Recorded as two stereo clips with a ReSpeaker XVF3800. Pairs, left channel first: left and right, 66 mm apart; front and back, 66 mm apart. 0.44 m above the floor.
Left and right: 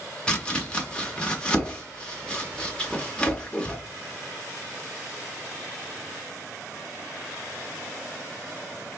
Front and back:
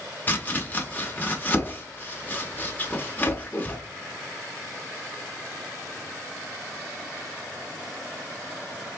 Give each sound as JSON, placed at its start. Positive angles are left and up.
{"t": 0.3, "sound": "chopping", "azimuth_deg": 30, "distance_m": 1.1}